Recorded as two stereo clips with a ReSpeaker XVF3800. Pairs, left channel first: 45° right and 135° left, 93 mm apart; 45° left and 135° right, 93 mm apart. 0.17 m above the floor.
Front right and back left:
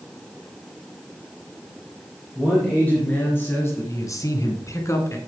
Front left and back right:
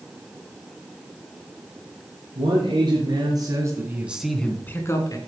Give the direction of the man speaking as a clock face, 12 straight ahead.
4 o'clock.